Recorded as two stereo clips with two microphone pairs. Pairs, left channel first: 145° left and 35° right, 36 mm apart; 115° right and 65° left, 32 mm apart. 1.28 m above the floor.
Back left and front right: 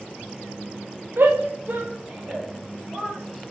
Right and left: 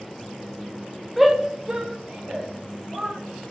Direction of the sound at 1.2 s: 20° right.